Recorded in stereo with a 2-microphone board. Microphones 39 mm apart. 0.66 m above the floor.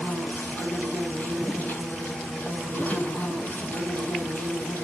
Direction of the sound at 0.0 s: 55° left (ahead or behind).